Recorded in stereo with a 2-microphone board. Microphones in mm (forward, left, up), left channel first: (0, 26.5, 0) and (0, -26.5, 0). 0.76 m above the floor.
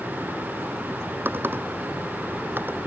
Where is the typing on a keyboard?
40° right (ahead or behind).